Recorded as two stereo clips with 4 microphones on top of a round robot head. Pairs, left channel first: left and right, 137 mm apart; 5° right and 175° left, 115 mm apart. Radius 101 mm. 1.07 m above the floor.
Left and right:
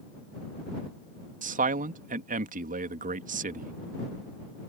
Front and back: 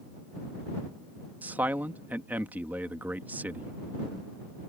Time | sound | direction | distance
1.4 | a man speaking | 110° right | ?